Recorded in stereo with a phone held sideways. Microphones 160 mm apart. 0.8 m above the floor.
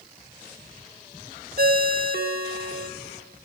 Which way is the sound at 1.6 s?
70° right (ahead or behind).